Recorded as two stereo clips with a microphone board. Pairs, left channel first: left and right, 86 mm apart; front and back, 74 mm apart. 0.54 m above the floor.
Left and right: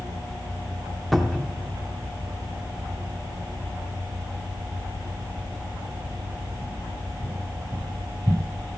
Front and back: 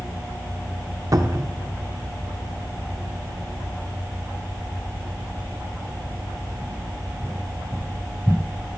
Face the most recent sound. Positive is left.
turn(degrees=180)